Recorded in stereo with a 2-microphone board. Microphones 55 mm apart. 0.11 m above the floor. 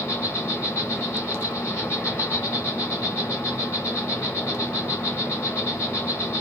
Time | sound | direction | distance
0.0 | an insect | 45° left (ahead or behind) | 3 m